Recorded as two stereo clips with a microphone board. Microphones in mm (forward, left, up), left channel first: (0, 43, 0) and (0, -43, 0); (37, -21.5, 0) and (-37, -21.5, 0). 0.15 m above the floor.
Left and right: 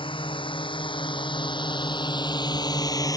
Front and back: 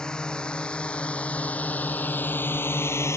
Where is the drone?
80° left; by 3.2 s 45° left.